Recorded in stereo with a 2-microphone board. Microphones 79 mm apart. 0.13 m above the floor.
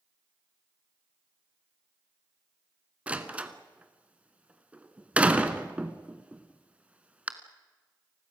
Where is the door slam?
15° right (ahead or behind), 1.3 m.